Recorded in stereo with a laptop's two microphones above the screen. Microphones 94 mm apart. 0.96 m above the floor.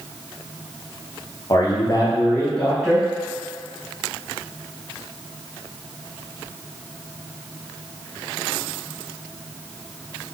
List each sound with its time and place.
1.5 s a man speaking: 40° left (ahead or behind), 0.9 m; by 3.1 s centre (ahead or behind), 1.1 m